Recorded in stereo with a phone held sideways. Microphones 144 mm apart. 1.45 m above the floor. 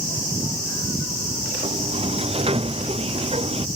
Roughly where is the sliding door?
Right.